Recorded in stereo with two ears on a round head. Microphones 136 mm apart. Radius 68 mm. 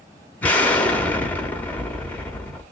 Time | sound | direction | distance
0.4 | an explosion | 10° left (ahead or behind) | 1.0 m